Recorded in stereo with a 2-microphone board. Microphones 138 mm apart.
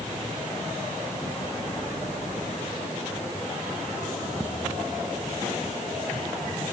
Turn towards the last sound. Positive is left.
No sound to turn to.